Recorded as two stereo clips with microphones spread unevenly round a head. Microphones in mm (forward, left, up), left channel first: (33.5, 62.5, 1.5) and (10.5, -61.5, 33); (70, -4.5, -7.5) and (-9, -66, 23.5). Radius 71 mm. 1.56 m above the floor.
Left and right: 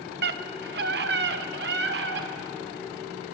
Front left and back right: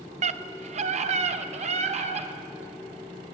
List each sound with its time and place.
0.2 s a scream: 125° right, 1.2 m